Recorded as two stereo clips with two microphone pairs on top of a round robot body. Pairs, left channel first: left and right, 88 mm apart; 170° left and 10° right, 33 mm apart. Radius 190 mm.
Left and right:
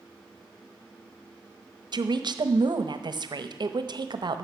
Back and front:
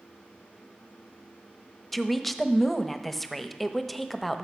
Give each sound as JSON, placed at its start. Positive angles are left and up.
{"t": 1.9, "sound": "a woman speaking", "azimuth_deg": -115, "distance_m": 1.0}